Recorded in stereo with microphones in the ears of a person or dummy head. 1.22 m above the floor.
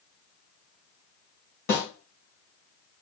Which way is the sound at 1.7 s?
55° left (ahead or behind).